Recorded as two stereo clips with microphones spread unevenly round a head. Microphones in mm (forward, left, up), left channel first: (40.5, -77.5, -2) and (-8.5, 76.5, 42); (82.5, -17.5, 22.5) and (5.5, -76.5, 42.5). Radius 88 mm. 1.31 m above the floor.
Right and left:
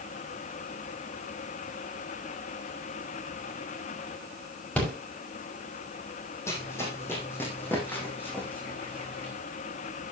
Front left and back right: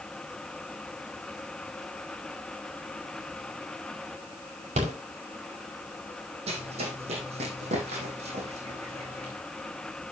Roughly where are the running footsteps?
Behind right.